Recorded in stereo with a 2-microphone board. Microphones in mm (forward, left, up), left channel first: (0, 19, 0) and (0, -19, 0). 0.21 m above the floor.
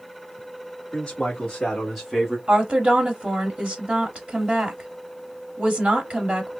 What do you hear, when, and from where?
0.9 s a man speaking: 25° left (ahead or behind), 2 m; by 2.4 s 15° right (ahead or behind), 1.5 m
2.5 s a woman speaking: 25° right (ahead or behind), 1.1 m